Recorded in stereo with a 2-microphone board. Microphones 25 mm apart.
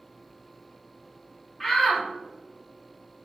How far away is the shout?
About 1.1 m.